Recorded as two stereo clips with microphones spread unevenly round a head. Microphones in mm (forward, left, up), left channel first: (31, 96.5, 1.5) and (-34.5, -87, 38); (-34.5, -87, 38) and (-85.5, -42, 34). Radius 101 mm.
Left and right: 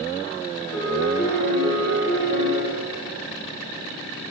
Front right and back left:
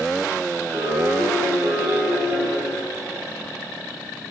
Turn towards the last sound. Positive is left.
turn(degrees=100)